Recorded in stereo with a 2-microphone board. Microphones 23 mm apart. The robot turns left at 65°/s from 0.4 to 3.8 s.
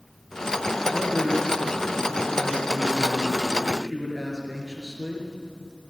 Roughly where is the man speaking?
Behind.